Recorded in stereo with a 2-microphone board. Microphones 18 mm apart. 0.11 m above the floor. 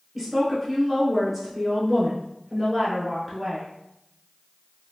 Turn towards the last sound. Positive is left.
turn(degrees=0)  # may be behind; listen again after turning